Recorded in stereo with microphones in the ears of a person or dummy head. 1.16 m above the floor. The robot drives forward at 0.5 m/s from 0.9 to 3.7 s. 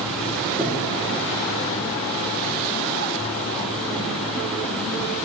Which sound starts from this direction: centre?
Breathing, at 0.6 s.